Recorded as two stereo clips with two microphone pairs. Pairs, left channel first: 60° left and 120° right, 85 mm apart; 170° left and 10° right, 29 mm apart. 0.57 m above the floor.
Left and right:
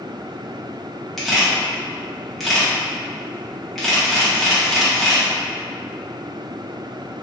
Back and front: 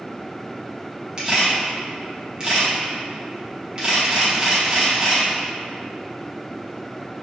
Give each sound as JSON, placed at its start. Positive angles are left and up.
{"t": 1.2, "sound": "a camera shutter", "azimuth_deg": -25, "distance_m": 0.9}